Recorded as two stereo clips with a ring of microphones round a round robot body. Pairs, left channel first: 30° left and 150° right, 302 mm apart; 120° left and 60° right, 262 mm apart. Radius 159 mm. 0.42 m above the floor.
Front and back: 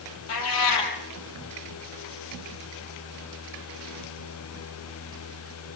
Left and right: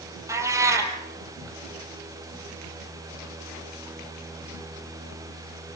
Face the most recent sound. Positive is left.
turn(degrees=20)